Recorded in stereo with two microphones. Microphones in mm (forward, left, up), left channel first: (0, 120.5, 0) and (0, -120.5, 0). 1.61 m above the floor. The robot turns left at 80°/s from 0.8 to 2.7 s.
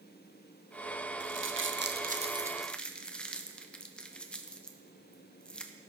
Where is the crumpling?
50° right (ahead or behind), 0.7 m; by 5.7 s 5° left (ahead or behind), 0.7 m.